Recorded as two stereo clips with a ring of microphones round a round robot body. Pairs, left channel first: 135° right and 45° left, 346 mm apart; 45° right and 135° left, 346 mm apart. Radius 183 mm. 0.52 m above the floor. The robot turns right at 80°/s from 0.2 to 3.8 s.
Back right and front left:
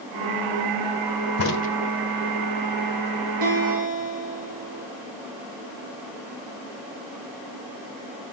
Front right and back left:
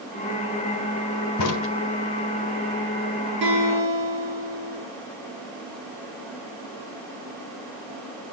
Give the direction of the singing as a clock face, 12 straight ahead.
No singing in this recording.